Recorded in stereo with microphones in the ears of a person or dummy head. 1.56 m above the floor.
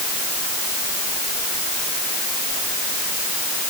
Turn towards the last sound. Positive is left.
No sound to turn to.